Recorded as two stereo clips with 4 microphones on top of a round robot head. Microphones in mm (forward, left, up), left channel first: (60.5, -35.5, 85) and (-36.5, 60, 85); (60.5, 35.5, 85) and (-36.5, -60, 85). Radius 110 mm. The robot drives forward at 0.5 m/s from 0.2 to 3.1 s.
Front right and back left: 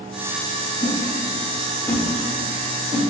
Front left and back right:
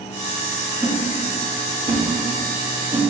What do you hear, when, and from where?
0.8 s a whoosh: 50° right, 1.1 m; by 3.0 s 140° right, 1.2 m